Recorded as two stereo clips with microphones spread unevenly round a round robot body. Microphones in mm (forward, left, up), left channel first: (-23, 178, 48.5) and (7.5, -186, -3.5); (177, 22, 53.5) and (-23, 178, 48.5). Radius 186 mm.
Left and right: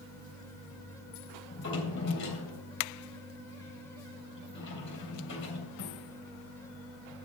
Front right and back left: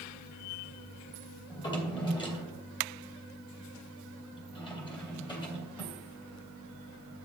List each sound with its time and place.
1.5 s a drawer: 35° left, 3 m